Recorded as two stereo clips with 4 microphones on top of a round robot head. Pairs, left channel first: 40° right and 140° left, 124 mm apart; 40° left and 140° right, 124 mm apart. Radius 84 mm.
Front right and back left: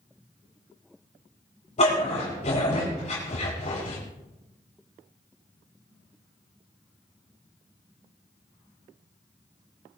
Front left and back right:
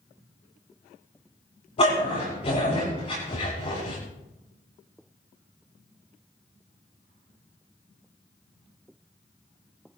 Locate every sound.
1.8 s a dog barking: 5° right, 8.5 m